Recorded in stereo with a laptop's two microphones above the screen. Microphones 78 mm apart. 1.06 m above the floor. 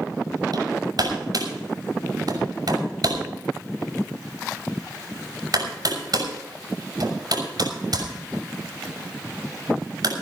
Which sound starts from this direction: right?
Hammering, at 0.5 s.